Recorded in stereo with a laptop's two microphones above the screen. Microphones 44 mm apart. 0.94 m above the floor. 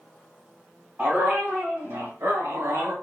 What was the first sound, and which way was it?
A dog barking, 35° right (ahead or behind).